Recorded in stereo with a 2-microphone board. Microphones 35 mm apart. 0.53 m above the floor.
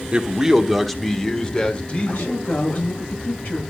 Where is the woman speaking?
80° left, 8.5 m.